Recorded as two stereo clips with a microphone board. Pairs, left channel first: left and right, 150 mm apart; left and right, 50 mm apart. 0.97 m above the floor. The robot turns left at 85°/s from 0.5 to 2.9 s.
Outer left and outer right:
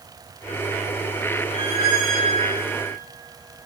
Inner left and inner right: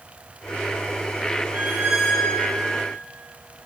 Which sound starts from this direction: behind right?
A squeak, at 1.5 s.